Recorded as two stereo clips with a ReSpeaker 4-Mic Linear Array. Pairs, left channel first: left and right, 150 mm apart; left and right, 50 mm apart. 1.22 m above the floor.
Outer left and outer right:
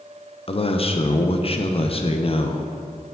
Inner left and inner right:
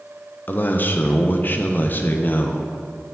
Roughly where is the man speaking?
Left.